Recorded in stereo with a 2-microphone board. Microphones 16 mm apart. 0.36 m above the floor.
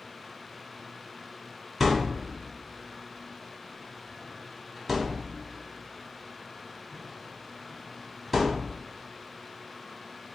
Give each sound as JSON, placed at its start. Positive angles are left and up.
{"t": 1.8, "sound": "a thud", "side_deg": 0, "distance_m": 1.2}